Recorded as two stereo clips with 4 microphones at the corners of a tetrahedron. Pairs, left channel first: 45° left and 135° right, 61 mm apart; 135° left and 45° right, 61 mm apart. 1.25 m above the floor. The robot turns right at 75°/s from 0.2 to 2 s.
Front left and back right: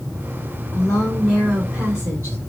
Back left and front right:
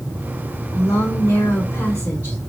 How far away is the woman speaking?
About 2.5 m.